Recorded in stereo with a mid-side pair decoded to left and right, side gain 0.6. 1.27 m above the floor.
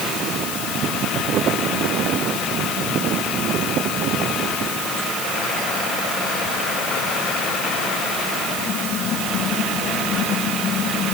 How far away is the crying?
I don't hear crying.